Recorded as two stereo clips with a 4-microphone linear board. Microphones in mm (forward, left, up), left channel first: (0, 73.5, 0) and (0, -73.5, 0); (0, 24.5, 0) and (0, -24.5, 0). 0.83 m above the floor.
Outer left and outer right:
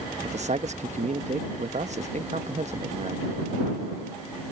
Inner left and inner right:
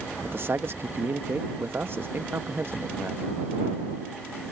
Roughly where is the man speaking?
Right.